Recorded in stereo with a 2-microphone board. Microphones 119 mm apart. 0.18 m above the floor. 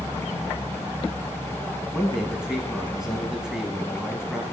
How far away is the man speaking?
About 1.2 m.